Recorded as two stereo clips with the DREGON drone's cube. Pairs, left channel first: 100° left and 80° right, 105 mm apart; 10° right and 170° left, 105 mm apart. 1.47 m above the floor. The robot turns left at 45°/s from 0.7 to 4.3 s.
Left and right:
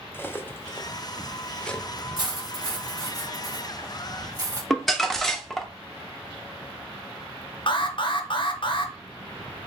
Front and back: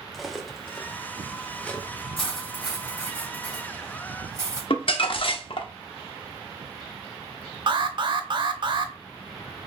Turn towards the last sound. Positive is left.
turn(degrees=135)